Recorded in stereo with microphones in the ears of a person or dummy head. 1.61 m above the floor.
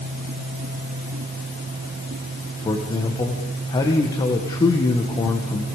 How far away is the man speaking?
About 1.8 m.